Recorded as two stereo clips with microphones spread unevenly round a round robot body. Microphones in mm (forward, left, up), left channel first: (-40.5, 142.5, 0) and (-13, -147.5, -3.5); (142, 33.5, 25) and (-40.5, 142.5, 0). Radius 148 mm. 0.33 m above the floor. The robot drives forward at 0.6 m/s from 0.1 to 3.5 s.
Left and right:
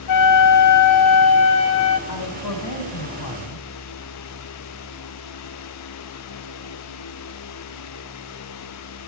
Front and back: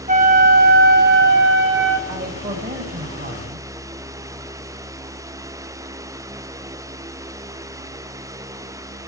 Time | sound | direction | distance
0.1 | a flute | 105° left | 1.7 m
2.1 | a man speaking | 110° left | 2.5 m